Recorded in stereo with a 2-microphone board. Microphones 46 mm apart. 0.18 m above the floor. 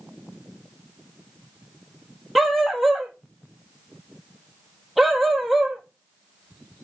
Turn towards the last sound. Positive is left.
turn(degrees=0)  # may be behind; listen again after turning